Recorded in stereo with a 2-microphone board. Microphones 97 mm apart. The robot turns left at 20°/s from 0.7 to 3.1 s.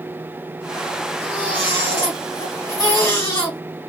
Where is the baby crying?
65° left, 2 m; by 3.6 s 25° left, 2 m.